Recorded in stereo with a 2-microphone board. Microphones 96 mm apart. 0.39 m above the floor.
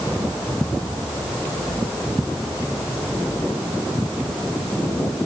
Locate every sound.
Only background noise.